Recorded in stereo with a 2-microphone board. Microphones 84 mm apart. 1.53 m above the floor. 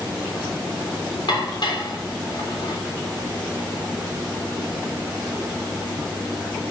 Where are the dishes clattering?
65° left (ahead or behind), 3 m.